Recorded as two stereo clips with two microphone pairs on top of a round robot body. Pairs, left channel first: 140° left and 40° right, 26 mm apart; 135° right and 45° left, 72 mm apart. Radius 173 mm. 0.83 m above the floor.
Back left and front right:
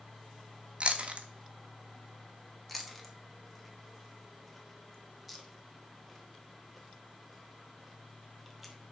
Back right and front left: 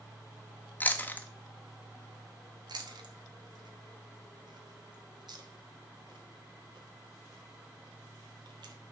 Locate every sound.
0.8 s chewing: 70° right, 1.2 m
2.7 s chewing: 55° left, 1.5 m